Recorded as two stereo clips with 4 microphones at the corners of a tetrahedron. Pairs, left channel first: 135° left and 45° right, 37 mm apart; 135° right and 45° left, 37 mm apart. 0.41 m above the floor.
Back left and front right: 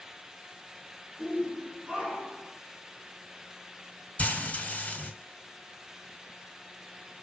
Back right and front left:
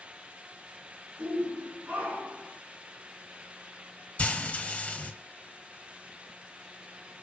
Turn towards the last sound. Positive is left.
turn(degrees=180)